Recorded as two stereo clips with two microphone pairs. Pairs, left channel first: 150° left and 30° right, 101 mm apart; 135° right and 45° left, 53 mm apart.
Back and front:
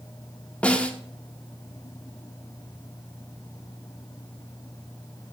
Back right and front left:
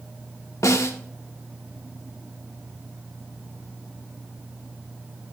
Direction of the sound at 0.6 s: 135° right.